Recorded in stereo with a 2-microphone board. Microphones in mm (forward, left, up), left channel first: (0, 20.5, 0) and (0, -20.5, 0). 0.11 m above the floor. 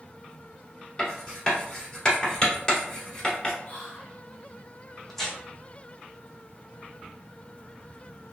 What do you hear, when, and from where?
1.0 s writing: 15° left (ahead or behind), 1.3 m
3.6 s whispering: 35° left (ahead or behind), 1.5 m
5.1 s tearing paper: 10° left (ahead or behind), 0.8 m